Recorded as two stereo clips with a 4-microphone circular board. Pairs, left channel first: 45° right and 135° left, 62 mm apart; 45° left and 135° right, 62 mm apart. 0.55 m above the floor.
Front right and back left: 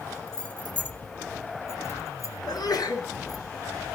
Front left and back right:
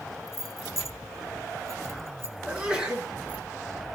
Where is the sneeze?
65° right, 7 m.